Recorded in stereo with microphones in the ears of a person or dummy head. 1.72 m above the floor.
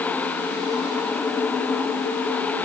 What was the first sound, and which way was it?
Only background noise.